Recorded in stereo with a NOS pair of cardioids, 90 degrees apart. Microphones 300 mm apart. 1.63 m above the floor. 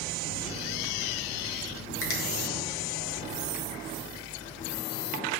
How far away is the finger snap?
About 1.9 m.